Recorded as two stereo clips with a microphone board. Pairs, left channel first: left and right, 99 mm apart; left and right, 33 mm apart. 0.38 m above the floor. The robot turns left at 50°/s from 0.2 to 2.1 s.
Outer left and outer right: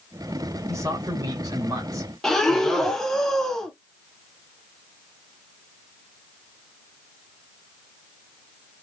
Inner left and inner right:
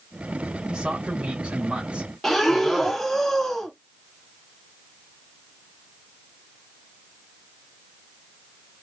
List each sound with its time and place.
0.7 s a man speaking: 55° right, 1.7 m; by 2.1 s 125° right, 1.7 m
2.2 s breathing: 5° left (ahead or behind), 0.7 m